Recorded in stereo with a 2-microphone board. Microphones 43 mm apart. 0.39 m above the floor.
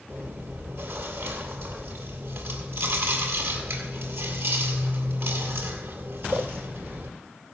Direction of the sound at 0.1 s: 70° right (ahead or behind).